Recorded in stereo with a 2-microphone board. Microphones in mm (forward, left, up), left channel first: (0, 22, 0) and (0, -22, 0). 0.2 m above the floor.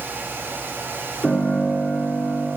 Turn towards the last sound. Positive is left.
turn(degrees=5)  # may be behind; listen again after turning